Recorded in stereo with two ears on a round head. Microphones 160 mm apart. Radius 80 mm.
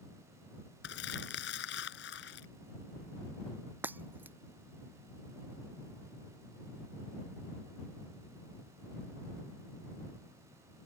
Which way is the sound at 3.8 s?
10° right (ahead or behind).